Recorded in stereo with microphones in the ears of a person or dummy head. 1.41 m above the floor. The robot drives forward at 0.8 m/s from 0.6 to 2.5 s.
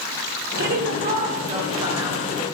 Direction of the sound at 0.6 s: 55° right (ahead or behind).